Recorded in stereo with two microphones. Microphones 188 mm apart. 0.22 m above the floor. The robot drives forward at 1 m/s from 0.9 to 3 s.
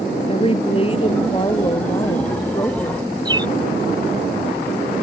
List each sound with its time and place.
0.3 s a woman speaking: 30° left (ahead or behind); by 3.1 s 20° left (ahead or behind)
3.2 s a bird: 25° right (ahead or behind)